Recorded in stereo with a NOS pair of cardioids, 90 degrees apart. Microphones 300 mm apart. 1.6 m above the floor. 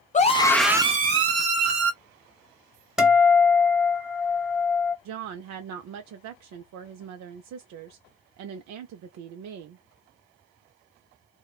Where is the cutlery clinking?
I don't hear cutlery clinking.